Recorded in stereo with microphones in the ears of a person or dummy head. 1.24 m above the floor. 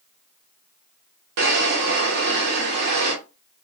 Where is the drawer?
60° right (ahead or behind), 0.8 m.